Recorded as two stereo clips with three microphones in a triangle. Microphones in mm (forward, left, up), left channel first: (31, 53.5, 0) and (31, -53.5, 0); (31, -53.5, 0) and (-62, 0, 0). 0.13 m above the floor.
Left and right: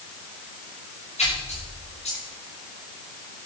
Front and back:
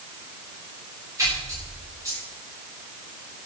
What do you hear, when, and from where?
1.2 s a splash: 95° left, 10 m